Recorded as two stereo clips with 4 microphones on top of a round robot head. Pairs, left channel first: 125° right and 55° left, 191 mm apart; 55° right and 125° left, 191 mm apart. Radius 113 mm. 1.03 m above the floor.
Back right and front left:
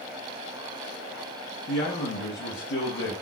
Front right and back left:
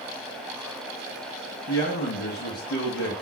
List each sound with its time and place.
1.7 s a man speaking: 90° right, 0.8 m